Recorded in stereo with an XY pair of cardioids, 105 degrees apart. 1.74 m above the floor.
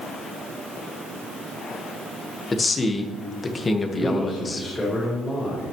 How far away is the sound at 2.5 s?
About 1.6 m.